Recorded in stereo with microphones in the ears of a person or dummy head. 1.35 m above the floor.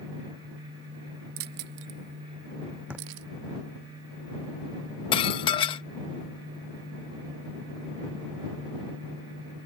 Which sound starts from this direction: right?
Keys jangling, at 1.4 s.